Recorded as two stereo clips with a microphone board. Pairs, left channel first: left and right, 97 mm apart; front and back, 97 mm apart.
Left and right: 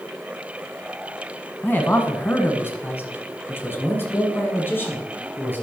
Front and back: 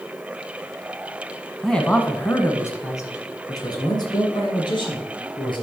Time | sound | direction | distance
1.6 | a man speaking | 80° left | 1.2 m